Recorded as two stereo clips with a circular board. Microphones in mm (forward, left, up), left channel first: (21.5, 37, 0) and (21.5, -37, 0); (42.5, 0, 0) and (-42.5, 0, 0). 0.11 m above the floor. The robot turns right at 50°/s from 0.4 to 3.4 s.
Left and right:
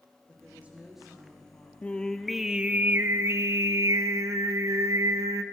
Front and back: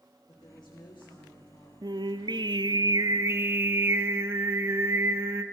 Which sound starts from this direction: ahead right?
A woman speaking, at 0.3 s.